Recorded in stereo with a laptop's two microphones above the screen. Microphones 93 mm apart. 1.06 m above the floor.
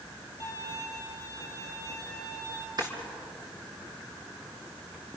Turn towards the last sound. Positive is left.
turn(degrees=-45)  # may be behind; listen again after turning